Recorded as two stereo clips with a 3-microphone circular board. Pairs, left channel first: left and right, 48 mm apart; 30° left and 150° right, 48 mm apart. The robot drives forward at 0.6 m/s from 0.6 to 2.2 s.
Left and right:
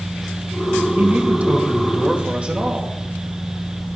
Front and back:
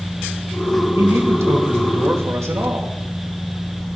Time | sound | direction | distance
1.0 | a man speaking | 140° right | 1.6 m